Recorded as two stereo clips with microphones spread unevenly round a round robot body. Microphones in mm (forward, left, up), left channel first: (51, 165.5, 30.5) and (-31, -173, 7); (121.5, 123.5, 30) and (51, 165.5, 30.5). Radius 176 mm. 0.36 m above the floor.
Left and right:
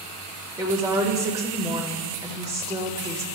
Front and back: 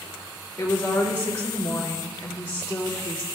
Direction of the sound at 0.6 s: 45° right.